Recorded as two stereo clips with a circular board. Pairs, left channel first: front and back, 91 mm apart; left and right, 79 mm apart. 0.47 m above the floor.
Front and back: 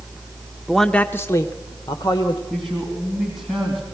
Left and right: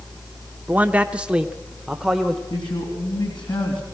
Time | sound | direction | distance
0.7 | a man speaking | 100° right | 0.7 m
2.5 | a man speaking | 90° left | 3.5 m